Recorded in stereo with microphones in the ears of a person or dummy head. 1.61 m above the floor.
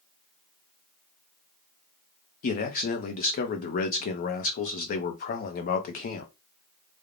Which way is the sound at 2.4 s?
35° left (ahead or behind).